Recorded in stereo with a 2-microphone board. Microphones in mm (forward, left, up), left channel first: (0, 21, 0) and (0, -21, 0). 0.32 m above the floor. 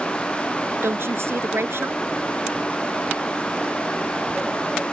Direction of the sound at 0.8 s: 65° right (ahead or behind).